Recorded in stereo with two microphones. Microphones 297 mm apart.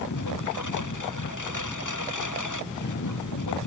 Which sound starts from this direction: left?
A lawn mower, at 0.0 s.